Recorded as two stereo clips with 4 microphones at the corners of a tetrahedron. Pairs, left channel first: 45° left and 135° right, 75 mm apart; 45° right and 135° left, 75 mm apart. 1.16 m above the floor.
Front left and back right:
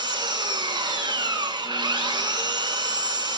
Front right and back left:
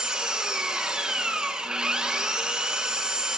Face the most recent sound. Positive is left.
turn(degrees=-145)